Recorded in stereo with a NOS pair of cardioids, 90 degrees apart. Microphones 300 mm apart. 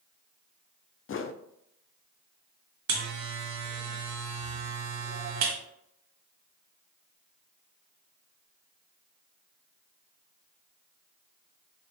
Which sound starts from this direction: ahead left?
A whoosh, at 1.1 s.